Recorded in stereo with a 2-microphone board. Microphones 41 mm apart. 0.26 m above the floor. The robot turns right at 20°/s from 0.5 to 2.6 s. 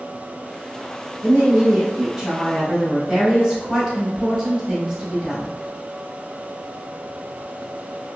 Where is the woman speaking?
15° right (ahead or behind), 1.3 m; by 5.5 s 5° right (ahead or behind), 1.3 m.